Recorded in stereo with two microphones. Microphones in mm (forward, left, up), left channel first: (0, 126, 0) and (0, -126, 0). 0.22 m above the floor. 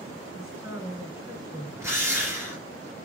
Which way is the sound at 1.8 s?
10° right (ahead or behind).